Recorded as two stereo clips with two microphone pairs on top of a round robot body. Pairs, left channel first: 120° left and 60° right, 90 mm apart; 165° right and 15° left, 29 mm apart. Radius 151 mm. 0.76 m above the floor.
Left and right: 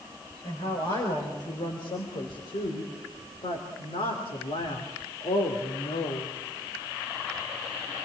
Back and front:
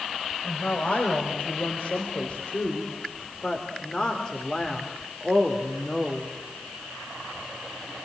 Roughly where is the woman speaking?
Behind.